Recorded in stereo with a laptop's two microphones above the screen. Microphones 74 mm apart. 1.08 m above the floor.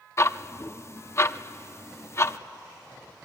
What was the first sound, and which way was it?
Ticking, 35° left (ahead or behind).